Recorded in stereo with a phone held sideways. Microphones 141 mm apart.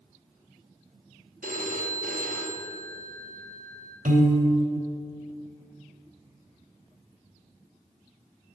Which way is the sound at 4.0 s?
75° right (ahead or behind).